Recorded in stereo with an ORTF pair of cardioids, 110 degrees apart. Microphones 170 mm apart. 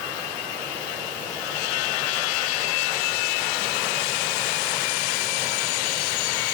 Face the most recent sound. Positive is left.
No sound to turn to.